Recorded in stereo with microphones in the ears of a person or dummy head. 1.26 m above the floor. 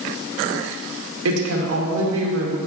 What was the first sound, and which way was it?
A woman speaking, 80° right.